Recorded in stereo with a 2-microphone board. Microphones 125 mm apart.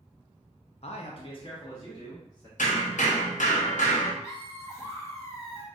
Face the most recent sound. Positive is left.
turn(degrees=25)  # may be behind; listen again after turning